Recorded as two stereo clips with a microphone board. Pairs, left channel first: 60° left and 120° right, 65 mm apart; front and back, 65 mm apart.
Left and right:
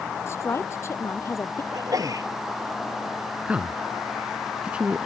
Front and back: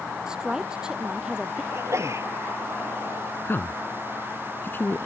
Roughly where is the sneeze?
Behind right.